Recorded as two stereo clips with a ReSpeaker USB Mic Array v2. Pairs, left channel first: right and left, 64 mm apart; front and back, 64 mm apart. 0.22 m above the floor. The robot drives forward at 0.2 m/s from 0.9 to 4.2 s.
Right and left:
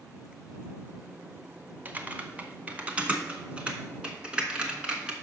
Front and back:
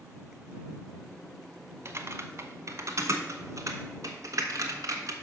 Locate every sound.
1.9 s typing on a keyboard: 150° left, 0.7 m; by 5.1 s 165° left, 1.0 m